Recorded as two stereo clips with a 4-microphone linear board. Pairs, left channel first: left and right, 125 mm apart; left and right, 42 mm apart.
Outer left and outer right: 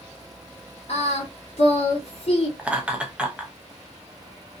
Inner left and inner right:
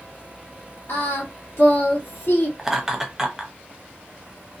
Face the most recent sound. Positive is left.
turn(degrees=-10)  # may be behind; listen again after turning